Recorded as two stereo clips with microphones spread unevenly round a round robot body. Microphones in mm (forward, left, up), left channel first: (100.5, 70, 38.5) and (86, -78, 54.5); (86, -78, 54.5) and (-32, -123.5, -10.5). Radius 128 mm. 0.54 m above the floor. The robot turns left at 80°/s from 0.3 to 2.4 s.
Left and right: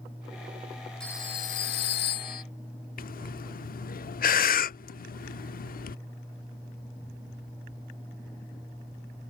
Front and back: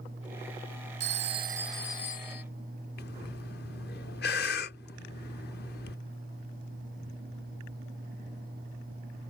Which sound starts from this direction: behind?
A phone ringing, at 1.0 s.